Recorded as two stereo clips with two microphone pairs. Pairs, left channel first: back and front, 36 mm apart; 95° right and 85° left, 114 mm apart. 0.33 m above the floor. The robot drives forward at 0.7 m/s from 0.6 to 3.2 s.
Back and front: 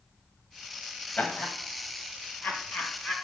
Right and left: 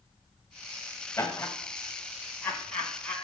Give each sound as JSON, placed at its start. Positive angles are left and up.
{"t": 1.2, "sound": "laughter", "azimuth_deg": -155, "distance_m": 1.4}